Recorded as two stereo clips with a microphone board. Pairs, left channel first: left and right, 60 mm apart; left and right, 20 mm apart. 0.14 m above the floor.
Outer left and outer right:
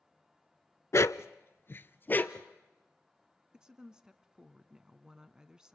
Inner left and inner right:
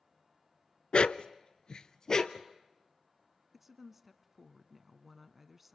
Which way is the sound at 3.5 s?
15° right (ahead or behind).